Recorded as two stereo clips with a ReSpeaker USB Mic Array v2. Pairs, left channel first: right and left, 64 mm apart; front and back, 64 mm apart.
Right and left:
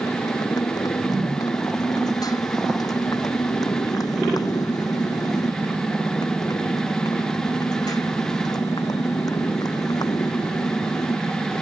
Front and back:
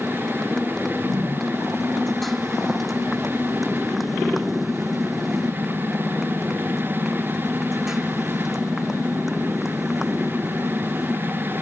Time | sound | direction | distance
0.0 | a motorcycle | 80° right | ?